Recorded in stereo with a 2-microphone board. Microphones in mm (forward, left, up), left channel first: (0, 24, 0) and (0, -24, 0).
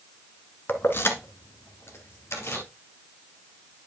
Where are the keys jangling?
45° left (ahead or behind), 1.1 m; by 2.6 s 60° left (ahead or behind), 2 m.